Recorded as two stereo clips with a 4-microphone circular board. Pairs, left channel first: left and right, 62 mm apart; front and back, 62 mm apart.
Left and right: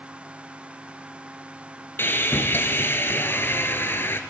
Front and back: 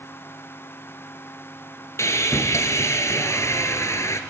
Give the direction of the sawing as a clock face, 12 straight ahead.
11 o'clock.